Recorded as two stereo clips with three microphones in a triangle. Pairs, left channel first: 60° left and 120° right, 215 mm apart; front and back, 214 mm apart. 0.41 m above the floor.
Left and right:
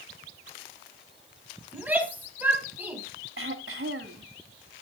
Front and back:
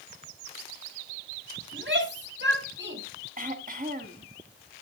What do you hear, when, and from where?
1.7 s a shout: 160° left, 3 m
3.4 s throat clearing: 135° right, 1.4 m